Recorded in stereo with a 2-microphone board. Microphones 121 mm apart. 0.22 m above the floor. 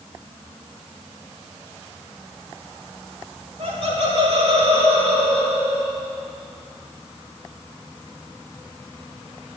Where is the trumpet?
No trumpet in this recording.